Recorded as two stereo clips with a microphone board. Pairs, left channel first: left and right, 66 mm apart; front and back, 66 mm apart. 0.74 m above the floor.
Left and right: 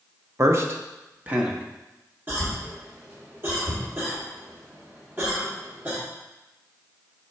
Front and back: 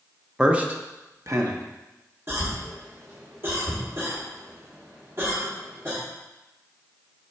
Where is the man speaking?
105° right, 0.7 m; by 1.6 s 160° right, 1.0 m.